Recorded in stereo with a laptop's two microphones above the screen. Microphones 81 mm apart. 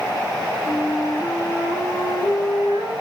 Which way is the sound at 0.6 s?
50° left (ahead or behind).